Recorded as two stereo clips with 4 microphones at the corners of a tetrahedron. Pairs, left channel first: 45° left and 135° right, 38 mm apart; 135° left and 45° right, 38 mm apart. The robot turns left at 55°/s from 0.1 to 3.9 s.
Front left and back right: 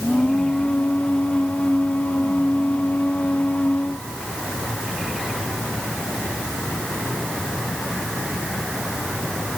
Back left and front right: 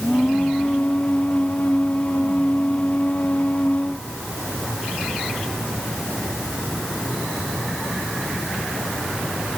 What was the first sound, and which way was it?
Only background noise.